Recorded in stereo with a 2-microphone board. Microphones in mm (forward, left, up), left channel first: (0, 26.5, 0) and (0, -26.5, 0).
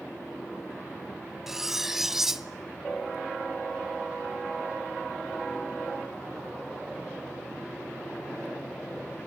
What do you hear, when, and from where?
1.5 s cutlery clinking: 5° right (ahead or behind), 0.7 m